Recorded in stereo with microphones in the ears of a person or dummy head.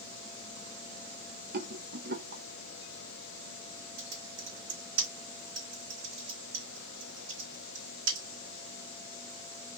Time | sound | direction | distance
1.5 | a rattle | 55° right (ahead or behind) | 0.6 m
4.0 | typing on a keyboard | 70° right (ahead or behind) | 1.7 m